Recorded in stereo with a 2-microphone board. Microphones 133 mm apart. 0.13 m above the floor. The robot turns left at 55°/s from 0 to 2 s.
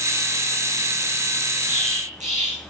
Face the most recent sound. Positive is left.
turn(degrees=-60)  # may be behind; listen again after turning